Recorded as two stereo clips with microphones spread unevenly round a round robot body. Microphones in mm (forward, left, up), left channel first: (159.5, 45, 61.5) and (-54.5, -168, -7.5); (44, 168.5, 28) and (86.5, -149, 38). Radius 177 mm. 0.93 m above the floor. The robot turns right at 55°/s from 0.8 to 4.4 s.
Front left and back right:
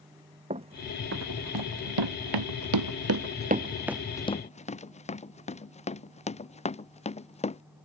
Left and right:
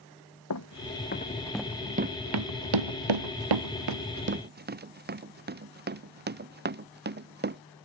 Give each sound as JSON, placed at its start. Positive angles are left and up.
{"t": 0.5, "sound": "running footsteps", "azimuth_deg": 150}